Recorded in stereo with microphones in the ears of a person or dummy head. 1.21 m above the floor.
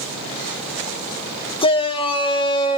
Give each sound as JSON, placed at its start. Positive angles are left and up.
{"t": 1.6, "sound": "a shout", "side_deg": 20, "distance_m": 1.3}